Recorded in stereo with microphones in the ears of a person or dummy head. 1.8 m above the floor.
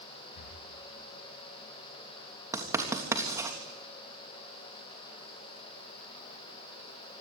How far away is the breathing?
About 4.5 m.